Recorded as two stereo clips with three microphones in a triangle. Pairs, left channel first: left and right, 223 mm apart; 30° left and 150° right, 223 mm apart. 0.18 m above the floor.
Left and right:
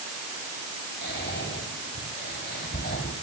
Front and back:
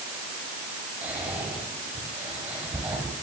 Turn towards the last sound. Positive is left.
turn(degrees=130)